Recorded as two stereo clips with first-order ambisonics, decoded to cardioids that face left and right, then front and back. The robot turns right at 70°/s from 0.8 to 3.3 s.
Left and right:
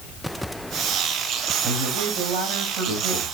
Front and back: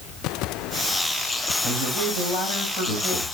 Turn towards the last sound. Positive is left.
turn(degrees=-5)